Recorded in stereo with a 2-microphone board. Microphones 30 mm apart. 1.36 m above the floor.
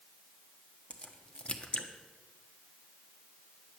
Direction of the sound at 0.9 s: 40° left (ahead or behind).